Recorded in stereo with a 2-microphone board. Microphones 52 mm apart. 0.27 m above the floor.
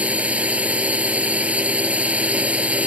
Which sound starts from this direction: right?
A drone, at 0.0 s.